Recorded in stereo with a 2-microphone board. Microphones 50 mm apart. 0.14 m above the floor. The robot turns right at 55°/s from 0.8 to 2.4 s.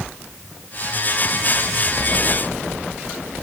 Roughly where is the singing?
No singing in this recording.